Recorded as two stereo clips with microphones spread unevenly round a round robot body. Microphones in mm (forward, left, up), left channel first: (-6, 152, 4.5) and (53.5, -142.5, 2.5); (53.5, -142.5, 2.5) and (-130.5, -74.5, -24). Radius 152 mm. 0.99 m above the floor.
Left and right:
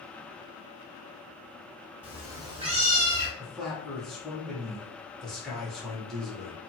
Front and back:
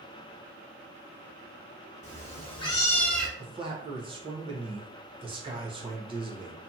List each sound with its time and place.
2.0 s a cat meowing: 5° left, 0.9 m; by 3.3 s 105° right, 0.7 m
3.4 s a man speaking: 170° right, 0.7 m